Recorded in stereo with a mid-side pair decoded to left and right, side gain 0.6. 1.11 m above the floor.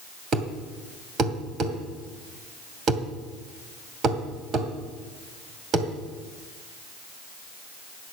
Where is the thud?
45° right, 2.5 m.